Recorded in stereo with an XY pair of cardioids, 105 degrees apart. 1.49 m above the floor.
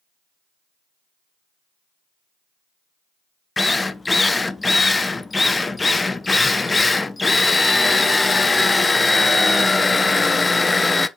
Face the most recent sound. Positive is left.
turn(degrees=20)